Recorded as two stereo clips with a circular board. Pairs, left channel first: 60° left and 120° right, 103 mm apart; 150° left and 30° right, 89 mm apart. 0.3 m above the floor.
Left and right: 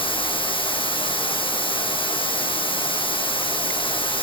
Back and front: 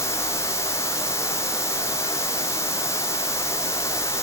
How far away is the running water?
About 3.5 m.